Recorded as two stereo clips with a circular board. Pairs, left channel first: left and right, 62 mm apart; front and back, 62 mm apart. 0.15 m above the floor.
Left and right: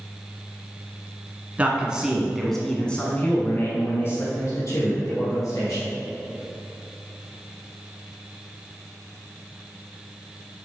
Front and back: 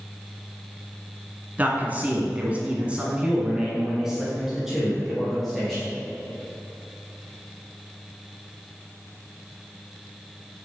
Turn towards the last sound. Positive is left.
turn(degrees=90)